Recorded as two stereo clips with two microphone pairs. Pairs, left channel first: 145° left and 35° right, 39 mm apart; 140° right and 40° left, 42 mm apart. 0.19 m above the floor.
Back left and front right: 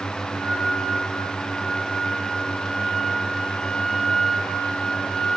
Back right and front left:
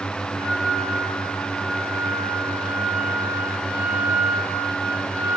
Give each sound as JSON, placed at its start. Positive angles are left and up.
{"t": 0.4, "sound": "a flute", "azimuth_deg": 55, "distance_m": 7.0}